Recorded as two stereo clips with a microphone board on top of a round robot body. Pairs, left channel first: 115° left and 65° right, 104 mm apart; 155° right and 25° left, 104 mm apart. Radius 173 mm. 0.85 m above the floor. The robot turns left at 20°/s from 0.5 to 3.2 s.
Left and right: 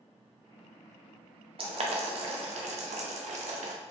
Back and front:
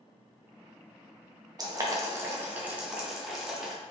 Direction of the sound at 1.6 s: 35° right.